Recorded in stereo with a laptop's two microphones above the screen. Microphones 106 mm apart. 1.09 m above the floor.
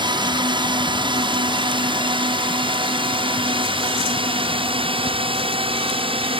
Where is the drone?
45° right (ahead or behind); by 6.4 s 60° right (ahead or behind).